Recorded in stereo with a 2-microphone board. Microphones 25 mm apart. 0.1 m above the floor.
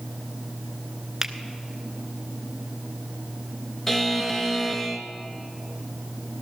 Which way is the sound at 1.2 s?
20° right (ahead or behind).